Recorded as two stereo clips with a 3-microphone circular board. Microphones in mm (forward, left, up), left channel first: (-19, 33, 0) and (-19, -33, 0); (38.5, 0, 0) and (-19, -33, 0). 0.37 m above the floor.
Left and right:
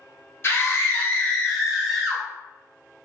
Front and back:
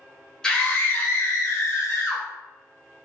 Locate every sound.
0.4 s a scream: 105° left, 1.1 m; by 2.2 s 5° right, 1.6 m